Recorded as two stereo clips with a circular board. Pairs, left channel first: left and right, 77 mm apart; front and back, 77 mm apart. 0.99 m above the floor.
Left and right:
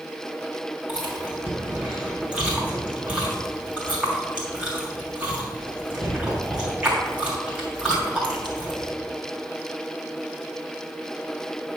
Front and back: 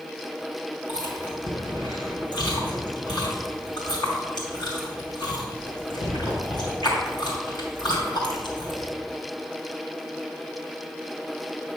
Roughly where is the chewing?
Ahead.